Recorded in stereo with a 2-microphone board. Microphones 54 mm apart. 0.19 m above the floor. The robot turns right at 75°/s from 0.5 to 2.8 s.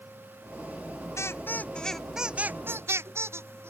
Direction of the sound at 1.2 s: 70° left (ahead or behind).